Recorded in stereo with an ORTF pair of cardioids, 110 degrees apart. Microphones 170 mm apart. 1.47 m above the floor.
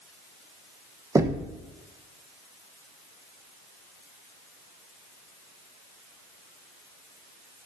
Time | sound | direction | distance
1.1 | knocking | 20° right | 1.0 m